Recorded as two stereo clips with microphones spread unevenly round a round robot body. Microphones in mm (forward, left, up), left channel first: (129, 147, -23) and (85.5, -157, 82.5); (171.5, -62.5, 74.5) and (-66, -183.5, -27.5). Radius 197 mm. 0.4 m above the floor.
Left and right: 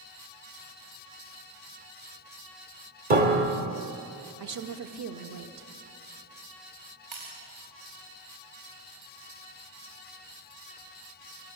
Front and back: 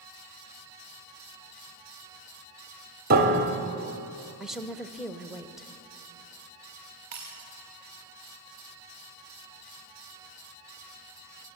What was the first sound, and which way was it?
A piano, 175° right.